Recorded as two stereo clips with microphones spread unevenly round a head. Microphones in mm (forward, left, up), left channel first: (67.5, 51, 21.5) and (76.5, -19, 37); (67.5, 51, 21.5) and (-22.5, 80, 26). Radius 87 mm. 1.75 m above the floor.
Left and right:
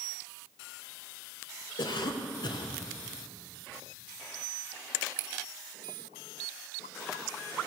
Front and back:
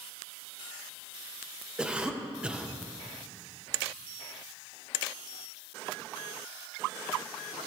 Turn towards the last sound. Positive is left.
turn(degrees=85)